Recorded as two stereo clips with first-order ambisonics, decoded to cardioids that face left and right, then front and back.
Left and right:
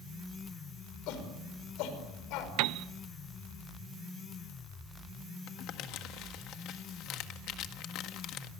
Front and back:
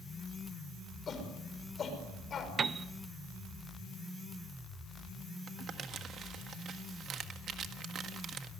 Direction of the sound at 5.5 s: 125° left.